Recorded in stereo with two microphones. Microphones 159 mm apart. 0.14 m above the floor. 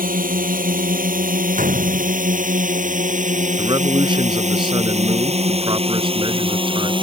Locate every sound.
0.0 s a drone: 70° right (ahead or behind); by 7.0 s 35° right (ahead or behind)
1.6 s a gunshot: 60° right (ahead or behind)
3.6 s a man speaking: 35° right (ahead or behind)